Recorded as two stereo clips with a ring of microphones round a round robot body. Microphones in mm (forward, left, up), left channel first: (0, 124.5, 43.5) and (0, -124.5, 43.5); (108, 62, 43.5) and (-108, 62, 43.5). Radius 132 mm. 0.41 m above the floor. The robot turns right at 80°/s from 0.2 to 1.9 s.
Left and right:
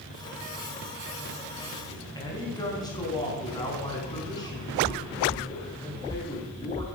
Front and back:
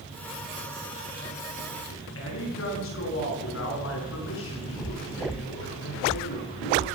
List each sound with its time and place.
1.9 s a man speaking: 15° left, 5.5 m